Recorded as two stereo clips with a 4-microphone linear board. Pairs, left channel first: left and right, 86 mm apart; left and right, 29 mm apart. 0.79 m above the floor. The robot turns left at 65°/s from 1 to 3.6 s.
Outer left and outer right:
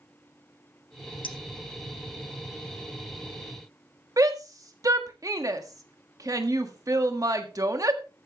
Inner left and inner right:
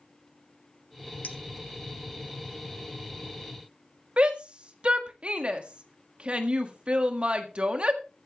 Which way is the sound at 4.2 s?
45° right (ahead or behind).